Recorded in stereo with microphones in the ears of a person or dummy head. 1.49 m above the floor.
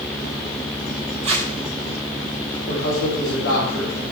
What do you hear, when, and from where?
1.2 s tape being pulled: 35° right (ahead or behind), 2 m
2.7 s a man speaking: 60° left (ahead or behind), 5 m